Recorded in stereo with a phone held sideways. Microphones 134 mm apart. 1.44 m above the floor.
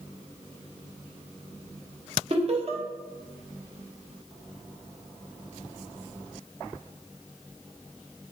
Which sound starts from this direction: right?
Laughter, at 2.3 s.